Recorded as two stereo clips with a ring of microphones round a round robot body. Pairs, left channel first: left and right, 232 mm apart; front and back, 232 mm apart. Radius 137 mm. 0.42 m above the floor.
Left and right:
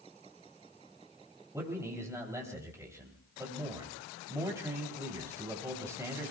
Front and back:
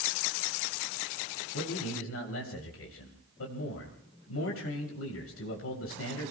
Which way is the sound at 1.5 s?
15° right.